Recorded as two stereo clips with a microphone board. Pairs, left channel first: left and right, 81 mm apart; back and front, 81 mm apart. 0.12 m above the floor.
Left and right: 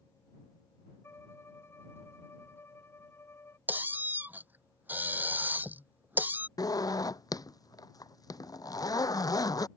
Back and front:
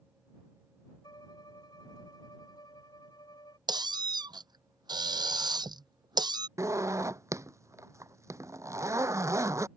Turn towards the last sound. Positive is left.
turn(degrees=50)